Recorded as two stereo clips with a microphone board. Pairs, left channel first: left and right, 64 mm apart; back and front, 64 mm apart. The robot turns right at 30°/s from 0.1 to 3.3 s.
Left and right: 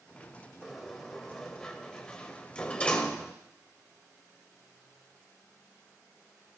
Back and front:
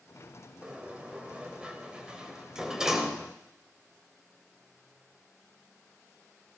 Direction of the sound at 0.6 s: 5° right.